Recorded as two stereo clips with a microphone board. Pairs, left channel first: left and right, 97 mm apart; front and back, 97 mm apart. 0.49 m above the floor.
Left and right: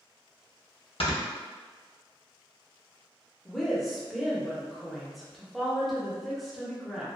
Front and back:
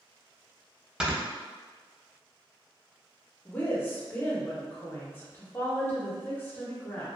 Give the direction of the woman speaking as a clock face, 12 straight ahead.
12 o'clock.